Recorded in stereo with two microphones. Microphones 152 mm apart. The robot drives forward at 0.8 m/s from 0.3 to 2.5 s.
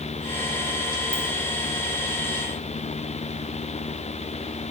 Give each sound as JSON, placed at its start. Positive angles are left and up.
{"t": 1.1, "sound": "a ringtone", "side_deg": -65, "distance_m": 0.8}